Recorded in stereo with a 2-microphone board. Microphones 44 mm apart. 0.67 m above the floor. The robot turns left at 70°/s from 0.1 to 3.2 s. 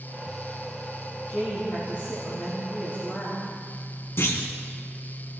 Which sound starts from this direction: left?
A clunk, at 4.2 s.